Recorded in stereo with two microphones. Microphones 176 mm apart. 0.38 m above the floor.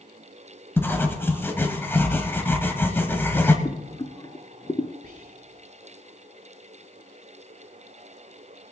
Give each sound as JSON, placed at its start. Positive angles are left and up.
{"t": 0.8, "sound": "writing", "side_deg": 15, "distance_m": 1.2}
{"t": 3.6, "sound": "boiling", "side_deg": 30, "distance_m": 0.7}
{"t": 5.0, "sound": "whispering", "side_deg": -50, "distance_m": 2.0}